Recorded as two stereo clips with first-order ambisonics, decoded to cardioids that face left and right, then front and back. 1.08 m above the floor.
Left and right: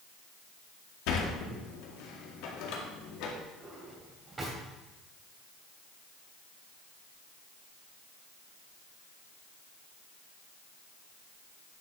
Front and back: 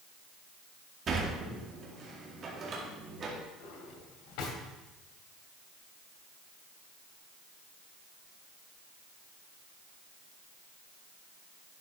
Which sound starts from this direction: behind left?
A sliding door, at 1.1 s.